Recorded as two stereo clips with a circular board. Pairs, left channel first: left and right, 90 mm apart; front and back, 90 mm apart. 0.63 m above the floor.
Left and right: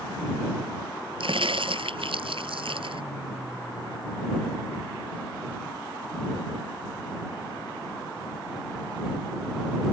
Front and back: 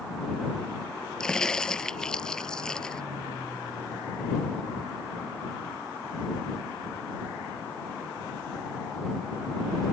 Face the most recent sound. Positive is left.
turn(degrees=-80)